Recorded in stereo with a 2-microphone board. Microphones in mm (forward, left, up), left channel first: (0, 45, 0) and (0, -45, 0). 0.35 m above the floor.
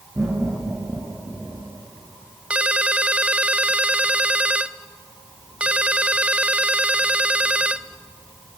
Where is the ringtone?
15° right (ahead or behind), 0.6 m.